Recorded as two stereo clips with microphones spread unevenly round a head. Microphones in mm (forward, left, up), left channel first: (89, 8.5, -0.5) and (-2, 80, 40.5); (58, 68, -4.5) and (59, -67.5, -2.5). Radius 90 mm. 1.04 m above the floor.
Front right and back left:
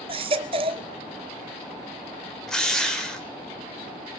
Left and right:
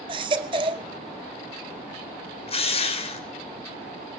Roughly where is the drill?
Ahead left.